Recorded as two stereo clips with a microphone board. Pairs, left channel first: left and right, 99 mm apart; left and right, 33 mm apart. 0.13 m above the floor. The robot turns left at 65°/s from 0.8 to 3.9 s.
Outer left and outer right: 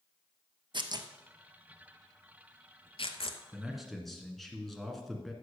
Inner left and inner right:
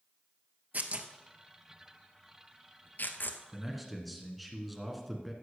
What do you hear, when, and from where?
0.7 s tearing paper: 50° right (ahead or behind), 0.8 m; by 3.4 s 60° left (ahead or behind), 0.8 m
3.5 s a man speaking: 10° right (ahead or behind), 1.6 m; by 5.3 s centre (ahead or behind), 1.6 m